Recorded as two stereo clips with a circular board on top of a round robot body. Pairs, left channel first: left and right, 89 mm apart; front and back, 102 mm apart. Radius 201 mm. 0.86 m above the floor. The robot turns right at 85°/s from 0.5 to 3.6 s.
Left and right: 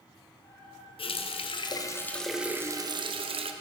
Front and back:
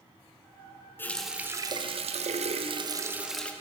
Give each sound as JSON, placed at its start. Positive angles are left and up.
{"t": 1.0, "sound": "a running tap", "azimuth_deg": 70, "distance_m": 0.5}